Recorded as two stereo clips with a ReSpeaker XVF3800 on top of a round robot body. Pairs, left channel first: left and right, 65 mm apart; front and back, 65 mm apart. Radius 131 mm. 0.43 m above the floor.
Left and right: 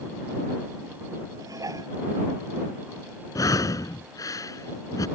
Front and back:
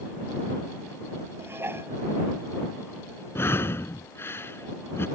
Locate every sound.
1.4 s dishes clattering: 125° right
3.4 s breathing: 60° left